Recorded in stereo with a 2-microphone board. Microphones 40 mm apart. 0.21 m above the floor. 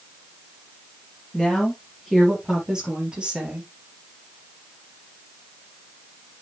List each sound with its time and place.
1.3 s a woman speaking: 5° left (ahead or behind), 4.5 m; by 3.7 s 30° right (ahead or behind), 5 m